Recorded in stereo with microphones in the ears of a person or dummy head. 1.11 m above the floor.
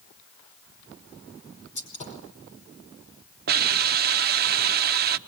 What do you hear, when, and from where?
1.8 s a gunshot: 40° left (ahead or behind), 5 m
3.5 s a hiss: 50° right (ahead or behind), 1.0 m